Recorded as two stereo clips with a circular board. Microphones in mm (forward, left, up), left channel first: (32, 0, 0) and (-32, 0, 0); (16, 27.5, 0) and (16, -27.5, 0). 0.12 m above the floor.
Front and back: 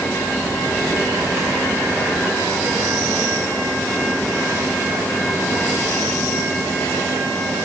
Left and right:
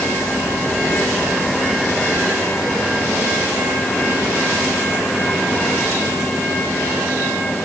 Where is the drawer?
I don't hear a drawer.